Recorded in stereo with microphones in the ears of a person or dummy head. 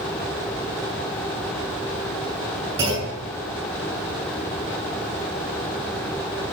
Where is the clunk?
20° right (ahead or behind), 7 m.